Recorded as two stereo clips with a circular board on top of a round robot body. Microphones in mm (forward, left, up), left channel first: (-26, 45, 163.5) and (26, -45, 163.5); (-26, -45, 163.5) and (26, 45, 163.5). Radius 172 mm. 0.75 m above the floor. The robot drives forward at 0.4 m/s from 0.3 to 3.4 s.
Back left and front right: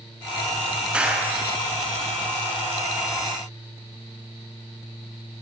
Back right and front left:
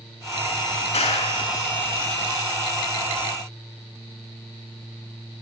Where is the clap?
140° right, 7.5 m.